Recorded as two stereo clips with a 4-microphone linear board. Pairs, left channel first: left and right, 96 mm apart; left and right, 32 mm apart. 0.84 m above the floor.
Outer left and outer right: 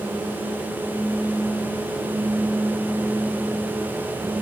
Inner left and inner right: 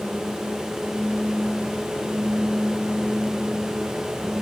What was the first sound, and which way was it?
Only background noise.